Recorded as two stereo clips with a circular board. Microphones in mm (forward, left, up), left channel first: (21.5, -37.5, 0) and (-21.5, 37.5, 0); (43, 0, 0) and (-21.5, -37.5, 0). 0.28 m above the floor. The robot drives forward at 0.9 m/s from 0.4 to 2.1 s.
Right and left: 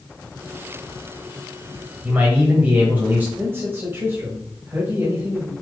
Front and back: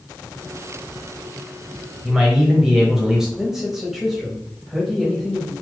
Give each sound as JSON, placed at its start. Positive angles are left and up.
{"t": 2.0, "sound": "a man speaking", "azimuth_deg": 135, "distance_m": 1.0}
{"t": 3.4, "sound": "a man speaking", "azimuth_deg": 130, "distance_m": 1.1}